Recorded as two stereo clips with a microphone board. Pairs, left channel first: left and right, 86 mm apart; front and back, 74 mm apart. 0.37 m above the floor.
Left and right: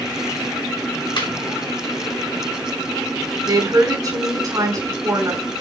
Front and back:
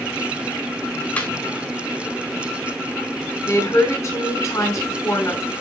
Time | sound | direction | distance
1.2 | laughter | 65° left | 4.5 m
3.5 | a woman speaking | 40° right | 3.5 m